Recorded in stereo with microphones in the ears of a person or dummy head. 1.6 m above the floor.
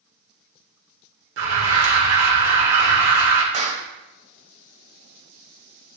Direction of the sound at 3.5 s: 35° right (ahead or behind).